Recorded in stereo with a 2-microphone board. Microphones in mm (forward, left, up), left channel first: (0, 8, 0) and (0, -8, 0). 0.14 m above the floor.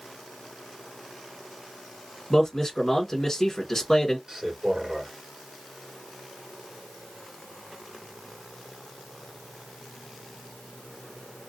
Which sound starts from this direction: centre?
A man speaking, at 2.3 s.